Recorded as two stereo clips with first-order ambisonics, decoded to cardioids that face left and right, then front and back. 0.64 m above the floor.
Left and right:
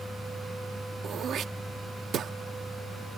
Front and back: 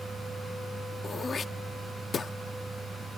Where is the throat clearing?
55° right.